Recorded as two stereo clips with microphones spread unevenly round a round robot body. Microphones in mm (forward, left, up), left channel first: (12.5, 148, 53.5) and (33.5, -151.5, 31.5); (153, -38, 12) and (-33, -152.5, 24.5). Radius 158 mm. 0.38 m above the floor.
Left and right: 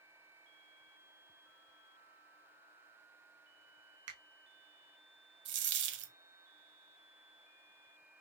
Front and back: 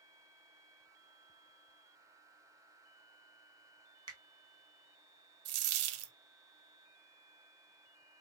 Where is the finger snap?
80° right, 1.5 m.